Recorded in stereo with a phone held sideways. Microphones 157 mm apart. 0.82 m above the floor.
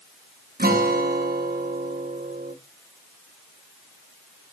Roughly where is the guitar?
Right.